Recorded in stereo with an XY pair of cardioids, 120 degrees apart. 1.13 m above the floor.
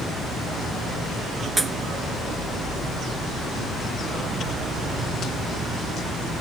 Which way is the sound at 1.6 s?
10° right.